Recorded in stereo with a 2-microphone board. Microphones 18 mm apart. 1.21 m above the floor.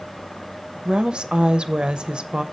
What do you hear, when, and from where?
0.8 s a woman speaking: 60° right (ahead or behind), 0.5 m